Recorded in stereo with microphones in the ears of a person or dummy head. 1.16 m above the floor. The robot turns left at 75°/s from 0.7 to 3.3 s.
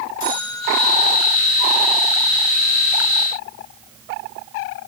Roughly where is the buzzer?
Left.